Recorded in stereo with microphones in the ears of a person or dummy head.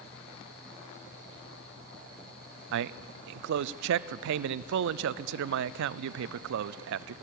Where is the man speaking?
70° right (ahead or behind), 0.5 m.